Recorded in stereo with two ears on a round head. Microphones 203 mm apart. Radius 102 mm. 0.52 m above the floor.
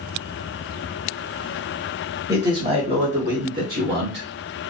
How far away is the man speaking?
About 1.2 m.